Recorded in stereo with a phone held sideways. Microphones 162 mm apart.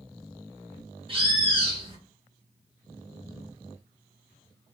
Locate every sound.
1.1 s a bird: 35° right (ahead or behind), 1.1 m